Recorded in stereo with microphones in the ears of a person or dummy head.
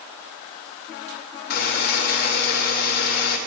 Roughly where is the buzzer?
Left.